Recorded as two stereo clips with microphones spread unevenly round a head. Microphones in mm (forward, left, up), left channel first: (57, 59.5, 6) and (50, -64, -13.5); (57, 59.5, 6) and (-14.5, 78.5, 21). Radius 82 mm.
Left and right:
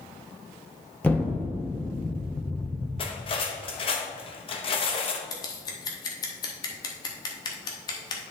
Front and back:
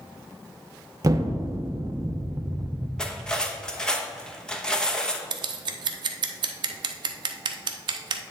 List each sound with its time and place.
1.0 s an explosion: 155° left, 0.7 m
3.0 s cutlery clinking: 70° left, 1.0 m
5.3 s scissors: 150° left, 0.6 m